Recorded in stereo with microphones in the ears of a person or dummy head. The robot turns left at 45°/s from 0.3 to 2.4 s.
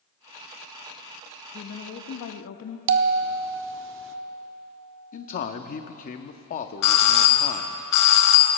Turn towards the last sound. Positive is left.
turn(degrees=55)  # may be behind; listen again after turning